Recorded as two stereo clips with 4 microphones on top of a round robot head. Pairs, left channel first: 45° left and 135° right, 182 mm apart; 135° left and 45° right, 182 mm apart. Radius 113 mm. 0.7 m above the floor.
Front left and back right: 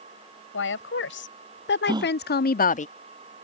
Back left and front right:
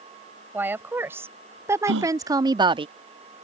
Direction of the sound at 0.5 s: 35° left.